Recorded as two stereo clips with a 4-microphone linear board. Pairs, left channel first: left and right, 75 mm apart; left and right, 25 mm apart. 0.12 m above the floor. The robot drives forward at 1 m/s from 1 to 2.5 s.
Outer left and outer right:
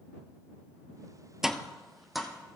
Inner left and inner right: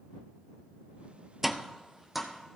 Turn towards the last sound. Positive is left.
turn(degrees=-5)  # may be behind; listen again after turning